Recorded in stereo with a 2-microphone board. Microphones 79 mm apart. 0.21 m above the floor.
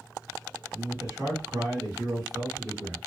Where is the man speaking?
45° right (ahead or behind), 2.5 m.